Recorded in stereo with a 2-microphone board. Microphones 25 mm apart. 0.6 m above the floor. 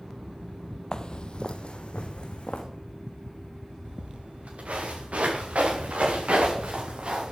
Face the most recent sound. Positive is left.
turn(degrees=-55)  # may be behind; listen again after turning